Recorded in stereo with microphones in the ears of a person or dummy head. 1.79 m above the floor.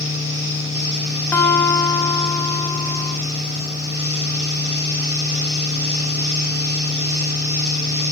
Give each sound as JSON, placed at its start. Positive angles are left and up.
{"t": 0.0, "sound": "a fan", "side_deg": -20, "distance_m": 3.0}
{"t": 1.3, "sound": "a guitar", "side_deg": 20, "distance_m": 0.8}